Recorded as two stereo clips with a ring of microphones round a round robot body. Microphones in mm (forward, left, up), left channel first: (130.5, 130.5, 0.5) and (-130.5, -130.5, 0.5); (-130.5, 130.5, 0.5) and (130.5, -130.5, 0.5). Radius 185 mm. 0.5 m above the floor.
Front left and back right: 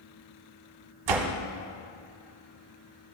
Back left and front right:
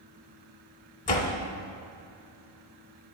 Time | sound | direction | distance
1.1 | a door slam | 155° right | 0.9 m